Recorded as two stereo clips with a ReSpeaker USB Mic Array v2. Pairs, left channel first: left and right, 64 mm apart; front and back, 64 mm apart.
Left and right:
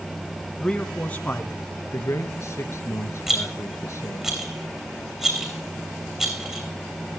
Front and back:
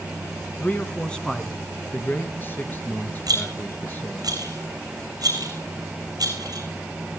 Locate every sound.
0.6 s a man speaking: 25° left, 1.2 m; by 1.6 s 90° left, 1.2 m
1.9 s a man speaking: 55° left, 3 m
3.3 s a rattle: 175° right, 2.5 m